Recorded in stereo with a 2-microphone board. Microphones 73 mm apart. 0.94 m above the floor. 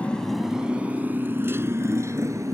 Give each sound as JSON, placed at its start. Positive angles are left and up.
{"t": 0.0, "sound": "a motorcycle", "side_deg": 15}